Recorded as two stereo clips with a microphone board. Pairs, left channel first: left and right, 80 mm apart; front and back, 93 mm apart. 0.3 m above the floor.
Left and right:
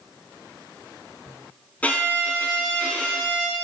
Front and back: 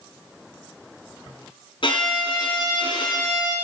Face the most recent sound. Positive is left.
turn(degrees=20)